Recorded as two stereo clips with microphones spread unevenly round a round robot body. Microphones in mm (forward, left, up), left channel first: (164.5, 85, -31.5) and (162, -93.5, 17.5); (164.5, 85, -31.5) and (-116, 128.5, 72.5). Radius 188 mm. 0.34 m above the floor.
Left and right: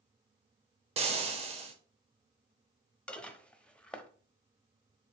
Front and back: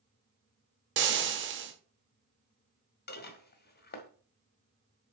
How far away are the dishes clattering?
About 1.3 m.